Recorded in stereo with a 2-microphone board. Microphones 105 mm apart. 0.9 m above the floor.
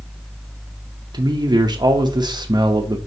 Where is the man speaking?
45° right (ahead or behind), 0.7 m.